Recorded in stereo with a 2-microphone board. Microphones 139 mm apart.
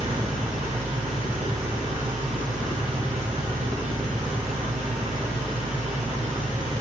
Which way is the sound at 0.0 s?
70° right (ahead or behind).